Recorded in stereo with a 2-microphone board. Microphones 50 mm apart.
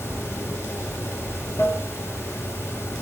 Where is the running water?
55° left (ahead or behind), 2.5 m.